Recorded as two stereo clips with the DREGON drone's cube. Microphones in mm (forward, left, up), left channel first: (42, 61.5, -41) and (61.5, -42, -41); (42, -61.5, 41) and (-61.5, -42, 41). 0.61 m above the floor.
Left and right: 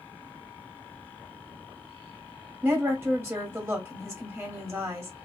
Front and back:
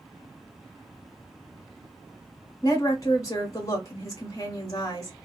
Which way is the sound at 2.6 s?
40° right.